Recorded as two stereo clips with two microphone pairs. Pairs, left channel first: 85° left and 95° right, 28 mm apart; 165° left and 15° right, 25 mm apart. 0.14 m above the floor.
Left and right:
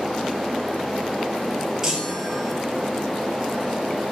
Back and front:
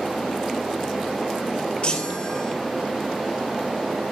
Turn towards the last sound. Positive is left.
turn(degrees=-165)